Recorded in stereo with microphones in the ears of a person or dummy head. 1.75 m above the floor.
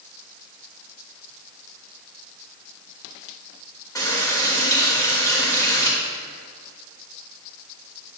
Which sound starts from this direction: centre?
A running tap, at 4.0 s.